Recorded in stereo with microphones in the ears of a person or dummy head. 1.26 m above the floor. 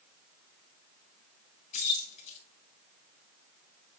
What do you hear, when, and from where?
1.7 s keys jangling: 40° left (ahead or behind), 3.5 m